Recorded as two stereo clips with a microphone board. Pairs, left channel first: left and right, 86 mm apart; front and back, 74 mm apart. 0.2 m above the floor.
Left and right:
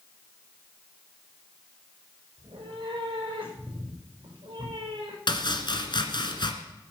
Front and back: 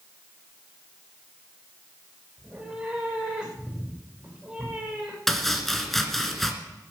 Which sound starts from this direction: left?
Chopping, at 5.3 s.